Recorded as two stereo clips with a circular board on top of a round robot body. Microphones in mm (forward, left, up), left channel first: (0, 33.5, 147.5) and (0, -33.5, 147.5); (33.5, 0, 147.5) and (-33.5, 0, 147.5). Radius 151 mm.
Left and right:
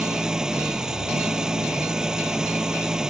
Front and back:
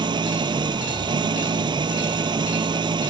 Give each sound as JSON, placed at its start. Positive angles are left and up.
{"t": 0.0, "sound": "an engine running", "azimuth_deg": -170}